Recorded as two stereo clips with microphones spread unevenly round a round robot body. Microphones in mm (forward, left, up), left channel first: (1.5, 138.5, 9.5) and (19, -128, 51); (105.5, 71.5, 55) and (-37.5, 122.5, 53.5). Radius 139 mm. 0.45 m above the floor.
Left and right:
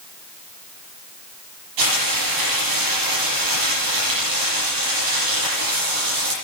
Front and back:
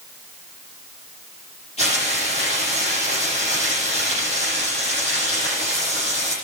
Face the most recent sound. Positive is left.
turn(degrees=-85)